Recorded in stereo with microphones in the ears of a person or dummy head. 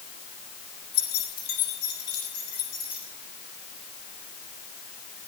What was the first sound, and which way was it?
Keys jangling, 50° left (ahead or behind).